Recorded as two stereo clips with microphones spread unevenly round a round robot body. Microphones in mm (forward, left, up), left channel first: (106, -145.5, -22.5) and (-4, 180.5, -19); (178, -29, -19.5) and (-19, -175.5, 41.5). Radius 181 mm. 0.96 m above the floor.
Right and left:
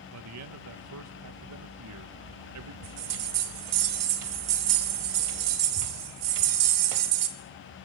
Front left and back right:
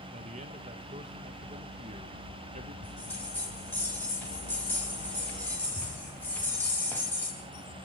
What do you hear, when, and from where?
0.1 s a man speaking: 140° left, 0.7 m
2.8 s a bell: 130° left, 1.2 m